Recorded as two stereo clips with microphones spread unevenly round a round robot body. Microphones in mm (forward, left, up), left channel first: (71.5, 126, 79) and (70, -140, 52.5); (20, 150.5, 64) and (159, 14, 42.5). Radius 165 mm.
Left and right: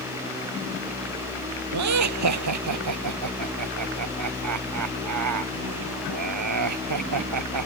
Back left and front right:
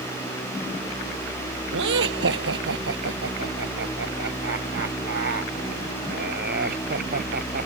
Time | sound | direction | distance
1.7 | laughter | 80° right | ?